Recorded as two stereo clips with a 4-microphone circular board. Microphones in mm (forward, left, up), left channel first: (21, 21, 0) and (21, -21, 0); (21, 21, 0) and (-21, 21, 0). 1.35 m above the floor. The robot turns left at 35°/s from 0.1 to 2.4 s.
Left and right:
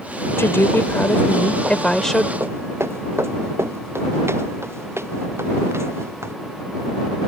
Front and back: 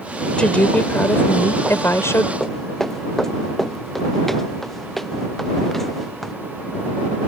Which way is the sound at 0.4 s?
70° left.